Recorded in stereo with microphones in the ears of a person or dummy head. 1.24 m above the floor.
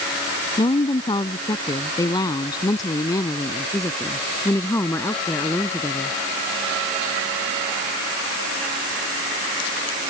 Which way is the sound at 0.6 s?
25° left (ahead or behind).